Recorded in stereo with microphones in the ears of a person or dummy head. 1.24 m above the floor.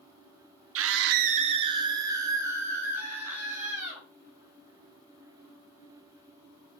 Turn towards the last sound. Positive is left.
turn(degrees=-10)  # may be behind; listen again after turning